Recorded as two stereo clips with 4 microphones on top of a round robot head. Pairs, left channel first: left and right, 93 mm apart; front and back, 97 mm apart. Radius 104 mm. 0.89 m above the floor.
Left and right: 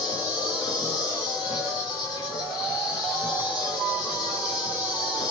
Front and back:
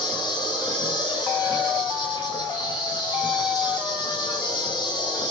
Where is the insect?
40° left, 7 m.